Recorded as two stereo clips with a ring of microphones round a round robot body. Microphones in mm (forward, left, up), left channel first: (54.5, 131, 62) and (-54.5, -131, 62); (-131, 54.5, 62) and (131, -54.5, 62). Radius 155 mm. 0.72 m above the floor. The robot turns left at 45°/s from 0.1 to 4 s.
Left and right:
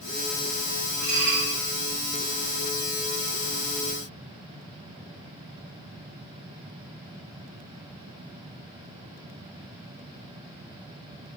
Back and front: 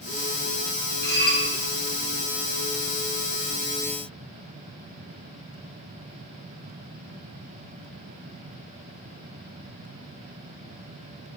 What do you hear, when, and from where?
1.0 s dishes clattering: 145° right, 2 m; by 1.4 s 165° right, 2 m